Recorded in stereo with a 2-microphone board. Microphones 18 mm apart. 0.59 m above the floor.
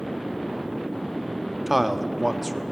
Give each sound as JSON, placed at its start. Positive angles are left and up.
{"t": 1.7, "sound": "a man speaking", "side_deg": -10, "distance_m": 0.8}